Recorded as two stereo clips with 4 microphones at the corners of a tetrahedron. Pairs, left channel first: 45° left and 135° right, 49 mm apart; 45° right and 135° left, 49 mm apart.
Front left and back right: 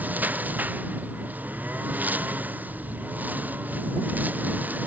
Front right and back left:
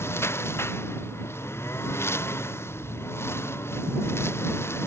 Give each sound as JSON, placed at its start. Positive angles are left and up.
{"t": 0.0, "sound": "a lawn mower", "azimuth_deg": -80}